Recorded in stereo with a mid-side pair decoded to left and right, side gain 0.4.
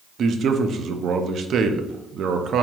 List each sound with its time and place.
0.2 s a man speaking: 65° right, 0.6 m